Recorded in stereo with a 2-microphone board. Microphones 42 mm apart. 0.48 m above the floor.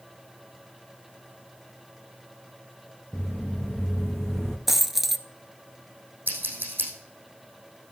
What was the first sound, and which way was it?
Footsteps, 15° left (ahead or behind).